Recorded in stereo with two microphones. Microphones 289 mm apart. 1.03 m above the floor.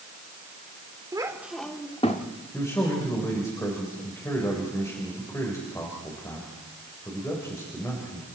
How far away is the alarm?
No alarm in this recording.